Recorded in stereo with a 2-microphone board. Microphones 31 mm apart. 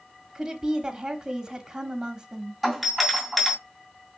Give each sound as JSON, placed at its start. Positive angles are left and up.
{"t": 0.3, "sound": "a woman speaking", "side_deg": -25, "distance_m": 0.9}
{"t": 2.6, "sound": "a doorbell", "side_deg": 5, "distance_m": 2.5}